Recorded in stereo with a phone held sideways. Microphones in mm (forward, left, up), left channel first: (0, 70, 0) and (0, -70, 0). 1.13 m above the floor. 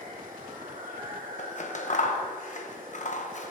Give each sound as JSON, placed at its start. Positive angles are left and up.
{"t": 0.0, "sound": "running water", "side_deg": -80, "distance_m": 2.0}
{"t": 1.4, "sound": "scissors", "side_deg": 60, "distance_m": 1.0}